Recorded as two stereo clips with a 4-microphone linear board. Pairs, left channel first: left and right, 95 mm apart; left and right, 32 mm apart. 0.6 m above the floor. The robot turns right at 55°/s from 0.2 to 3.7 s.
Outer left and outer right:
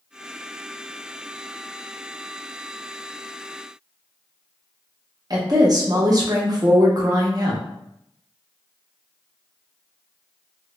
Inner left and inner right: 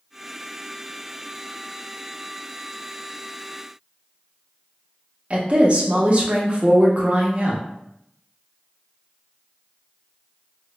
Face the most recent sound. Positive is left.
turn(degrees=-40)  # may be behind; listen again after turning